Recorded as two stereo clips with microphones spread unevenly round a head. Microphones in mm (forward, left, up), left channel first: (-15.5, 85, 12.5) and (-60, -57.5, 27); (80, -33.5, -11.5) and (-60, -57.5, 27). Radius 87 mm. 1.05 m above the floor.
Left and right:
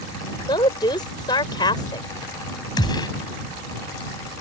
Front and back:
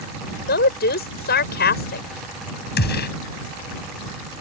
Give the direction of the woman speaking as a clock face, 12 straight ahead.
12 o'clock.